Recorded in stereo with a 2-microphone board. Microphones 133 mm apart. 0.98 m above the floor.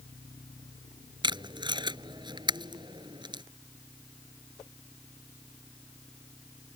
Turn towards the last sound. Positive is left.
turn(degrees=-35)  # may be behind; listen again after turning